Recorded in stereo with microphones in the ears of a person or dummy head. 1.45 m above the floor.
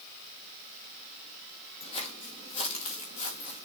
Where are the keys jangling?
I don't hear keys jangling.